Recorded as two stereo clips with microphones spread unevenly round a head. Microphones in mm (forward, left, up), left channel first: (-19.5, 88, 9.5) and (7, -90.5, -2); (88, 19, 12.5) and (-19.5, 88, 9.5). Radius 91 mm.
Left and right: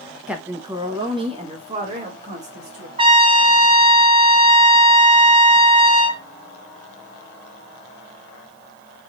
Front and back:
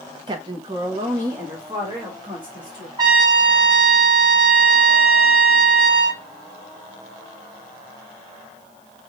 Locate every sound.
0.3 s a woman speaking: 165° right, 0.7 m; by 2.9 s 135° right, 2 m
3.0 s a trumpet: 145° right, 0.7 m